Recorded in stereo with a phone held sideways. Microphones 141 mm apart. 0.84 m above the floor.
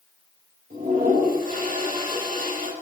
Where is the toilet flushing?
80° right, 5.5 m.